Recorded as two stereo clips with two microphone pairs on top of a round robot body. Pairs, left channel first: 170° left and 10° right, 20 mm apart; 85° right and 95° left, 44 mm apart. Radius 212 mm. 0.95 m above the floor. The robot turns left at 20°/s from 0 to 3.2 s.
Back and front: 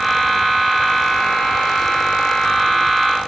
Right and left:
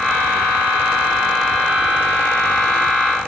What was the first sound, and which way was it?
Only background noise.